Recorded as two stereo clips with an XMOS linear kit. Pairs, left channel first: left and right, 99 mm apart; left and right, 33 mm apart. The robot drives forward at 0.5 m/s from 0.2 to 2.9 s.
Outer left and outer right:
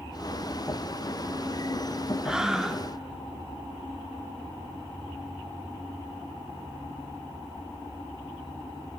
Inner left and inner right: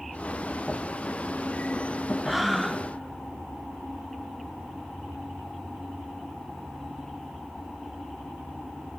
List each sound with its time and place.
2.2 s breathing: 5° right (ahead or behind), 0.6 m